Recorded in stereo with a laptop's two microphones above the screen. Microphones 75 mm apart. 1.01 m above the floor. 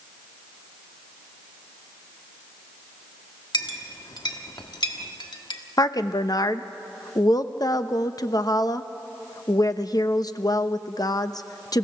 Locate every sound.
3.5 s a clink: 70° left (ahead or behind), 1.4 m
5.8 s a woman speaking: 55° left (ahead or behind), 0.8 m